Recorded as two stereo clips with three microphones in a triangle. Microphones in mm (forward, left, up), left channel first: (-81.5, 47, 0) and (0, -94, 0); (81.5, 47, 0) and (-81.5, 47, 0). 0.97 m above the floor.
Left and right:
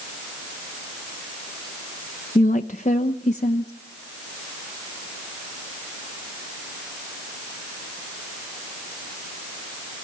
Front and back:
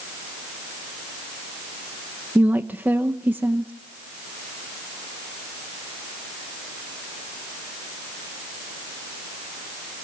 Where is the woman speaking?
100° left, 0.8 m.